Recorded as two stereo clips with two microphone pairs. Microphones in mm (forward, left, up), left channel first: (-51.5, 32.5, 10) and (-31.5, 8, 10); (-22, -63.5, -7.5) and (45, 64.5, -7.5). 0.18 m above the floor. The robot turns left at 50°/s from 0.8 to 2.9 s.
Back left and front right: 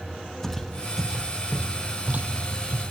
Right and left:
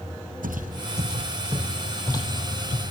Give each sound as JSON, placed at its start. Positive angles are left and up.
{"t": 0.4, "sound": "footsteps", "azimuth_deg": 50, "distance_m": 1.8}